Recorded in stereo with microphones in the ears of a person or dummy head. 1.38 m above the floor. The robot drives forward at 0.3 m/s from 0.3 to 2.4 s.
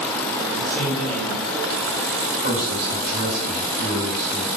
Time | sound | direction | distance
0.5 | a man speaking | 5° left (ahead or behind) | 0.9 m
2.4 | a man speaking | 75° right (ahead or behind) | 1.9 m